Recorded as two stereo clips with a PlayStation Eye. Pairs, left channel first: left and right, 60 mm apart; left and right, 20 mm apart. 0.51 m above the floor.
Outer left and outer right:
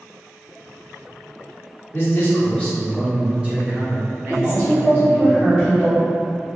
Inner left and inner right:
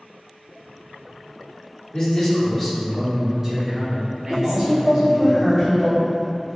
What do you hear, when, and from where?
1.9 s a man speaking: 45° left (ahead or behind), 1.1 m; by 5.3 s 65° right (ahead or behind), 1.8 m
4.3 s a woman speaking: 15° right (ahead or behind), 1.0 m